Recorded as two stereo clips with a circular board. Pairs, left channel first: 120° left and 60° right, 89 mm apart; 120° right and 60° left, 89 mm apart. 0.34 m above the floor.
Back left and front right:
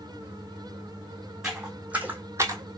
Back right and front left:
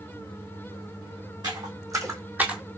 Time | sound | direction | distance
1.4 | footsteps | 25° left | 1.2 m